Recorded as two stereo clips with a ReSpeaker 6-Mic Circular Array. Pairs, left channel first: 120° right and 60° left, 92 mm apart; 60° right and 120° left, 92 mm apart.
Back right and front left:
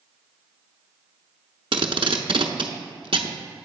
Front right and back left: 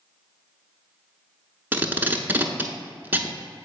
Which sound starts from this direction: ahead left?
Tape being pulled, at 1.7 s.